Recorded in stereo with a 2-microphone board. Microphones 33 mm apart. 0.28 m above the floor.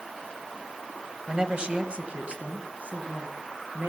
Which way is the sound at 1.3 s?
20° right (ahead or behind).